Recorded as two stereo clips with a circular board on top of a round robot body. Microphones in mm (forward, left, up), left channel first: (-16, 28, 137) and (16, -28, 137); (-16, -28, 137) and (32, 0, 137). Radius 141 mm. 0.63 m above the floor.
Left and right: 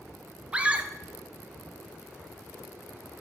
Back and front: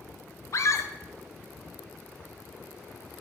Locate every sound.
0.5 s a scream: 130° right, 1.1 m